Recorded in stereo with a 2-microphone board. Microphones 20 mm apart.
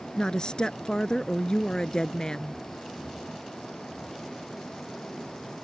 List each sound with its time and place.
0.2 s a woman speaking: 40° left (ahead or behind)